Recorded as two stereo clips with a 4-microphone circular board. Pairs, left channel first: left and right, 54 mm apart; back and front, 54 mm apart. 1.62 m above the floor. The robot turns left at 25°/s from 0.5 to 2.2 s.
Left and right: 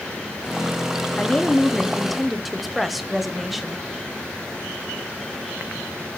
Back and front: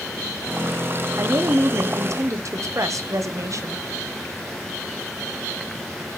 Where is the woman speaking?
20° left, 0.7 m; by 3.9 s 5° right, 0.7 m.